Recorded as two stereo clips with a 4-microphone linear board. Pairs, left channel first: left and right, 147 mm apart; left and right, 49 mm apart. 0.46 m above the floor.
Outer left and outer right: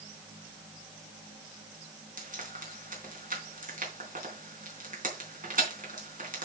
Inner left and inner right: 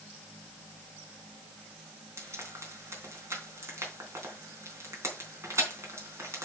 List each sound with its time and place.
2.2 s frying: 65° right (ahead or behind), 3.5 m